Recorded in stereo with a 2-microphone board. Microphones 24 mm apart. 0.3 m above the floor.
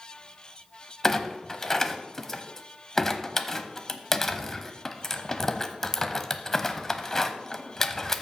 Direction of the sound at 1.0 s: 15° left (ahead or behind).